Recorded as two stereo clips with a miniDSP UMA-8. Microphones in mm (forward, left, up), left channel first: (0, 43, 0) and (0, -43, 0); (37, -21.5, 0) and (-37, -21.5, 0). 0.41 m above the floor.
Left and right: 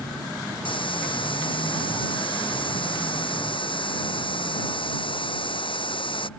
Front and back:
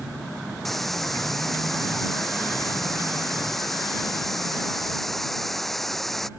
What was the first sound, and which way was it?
A hiss, 85° left.